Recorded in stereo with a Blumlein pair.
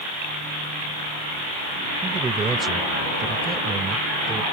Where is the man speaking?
15° right.